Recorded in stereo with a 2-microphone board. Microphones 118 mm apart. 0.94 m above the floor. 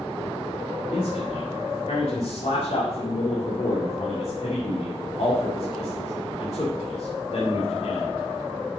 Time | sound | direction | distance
0.9 | a man speaking | 70° left (ahead or behind) | 2 m